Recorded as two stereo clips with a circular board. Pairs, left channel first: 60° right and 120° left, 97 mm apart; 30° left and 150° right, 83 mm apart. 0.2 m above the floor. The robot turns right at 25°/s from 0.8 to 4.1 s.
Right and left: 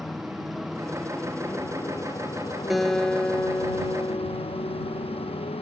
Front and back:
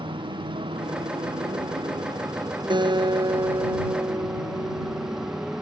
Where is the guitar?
150° right; by 5.5 s 115° right.